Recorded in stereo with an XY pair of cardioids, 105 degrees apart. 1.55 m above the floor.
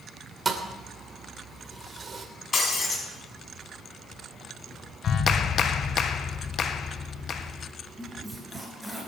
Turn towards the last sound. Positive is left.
turn(degrees=0)